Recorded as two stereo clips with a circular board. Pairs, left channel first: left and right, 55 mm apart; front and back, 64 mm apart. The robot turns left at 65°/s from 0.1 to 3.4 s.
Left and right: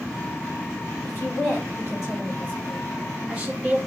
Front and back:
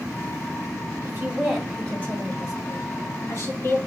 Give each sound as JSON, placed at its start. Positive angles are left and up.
{"t": 1.0, "sound": "a woman speaking", "azimuth_deg": 125, "distance_m": 2.0}